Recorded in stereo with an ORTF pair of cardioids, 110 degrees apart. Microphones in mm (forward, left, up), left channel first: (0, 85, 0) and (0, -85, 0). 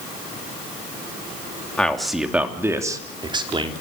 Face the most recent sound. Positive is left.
turn(degrees=-30)